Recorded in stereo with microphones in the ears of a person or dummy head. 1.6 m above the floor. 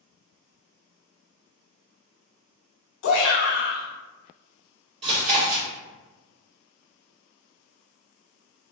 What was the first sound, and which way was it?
A shout, 65° left (ahead or behind).